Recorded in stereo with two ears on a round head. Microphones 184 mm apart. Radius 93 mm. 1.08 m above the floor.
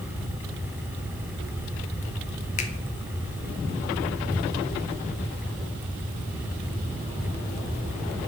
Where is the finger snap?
35° left (ahead or behind), 0.7 m.